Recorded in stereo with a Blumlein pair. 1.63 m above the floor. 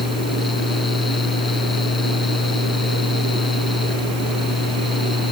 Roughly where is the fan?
Ahead.